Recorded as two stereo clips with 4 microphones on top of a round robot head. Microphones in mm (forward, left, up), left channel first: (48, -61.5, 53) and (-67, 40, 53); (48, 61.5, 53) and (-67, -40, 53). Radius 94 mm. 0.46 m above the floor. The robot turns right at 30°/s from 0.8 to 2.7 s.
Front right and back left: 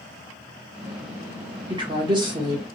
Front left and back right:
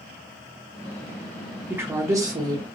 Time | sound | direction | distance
1.7 | a woman speaking | 155° left | 1.4 m